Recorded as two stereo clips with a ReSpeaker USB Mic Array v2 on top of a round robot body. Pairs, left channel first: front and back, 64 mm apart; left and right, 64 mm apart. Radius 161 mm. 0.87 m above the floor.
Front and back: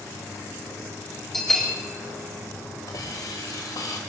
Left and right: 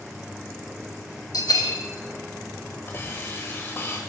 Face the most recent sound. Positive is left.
turn(degrees=30)